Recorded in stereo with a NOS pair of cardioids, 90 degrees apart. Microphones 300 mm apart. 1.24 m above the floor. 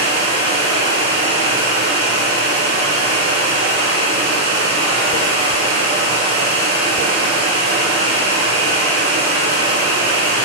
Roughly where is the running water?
Ahead right.